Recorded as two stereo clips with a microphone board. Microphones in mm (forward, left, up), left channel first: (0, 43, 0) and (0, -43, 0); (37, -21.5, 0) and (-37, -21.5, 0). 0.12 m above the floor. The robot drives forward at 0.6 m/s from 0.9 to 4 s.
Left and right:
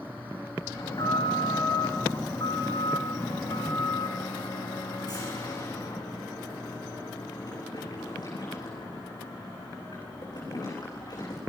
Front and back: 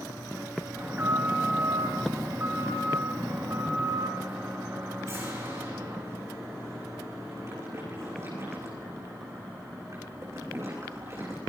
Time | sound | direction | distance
0.8 | an alarm | 120° left | 9 m